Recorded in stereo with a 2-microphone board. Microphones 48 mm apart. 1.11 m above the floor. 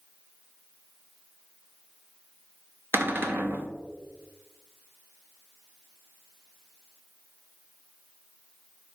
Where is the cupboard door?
45° right (ahead or behind), 0.6 m.